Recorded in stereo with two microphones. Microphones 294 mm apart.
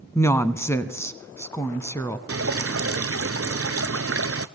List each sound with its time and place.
0.1 s a woman speaking: 10° left (ahead or behind), 1.0 m
2.3 s dripping: 50° right (ahead or behind), 0.6 m